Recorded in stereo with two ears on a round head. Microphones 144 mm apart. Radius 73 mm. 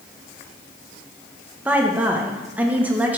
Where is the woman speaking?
10° right (ahead or behind), 1.0 m.